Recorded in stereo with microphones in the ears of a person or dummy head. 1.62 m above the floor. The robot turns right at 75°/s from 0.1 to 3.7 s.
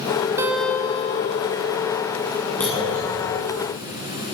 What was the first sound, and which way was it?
A guitar, 25° right.